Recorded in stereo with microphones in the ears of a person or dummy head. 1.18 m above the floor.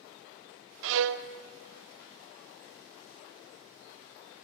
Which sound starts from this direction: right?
A violin, at 0.8 s.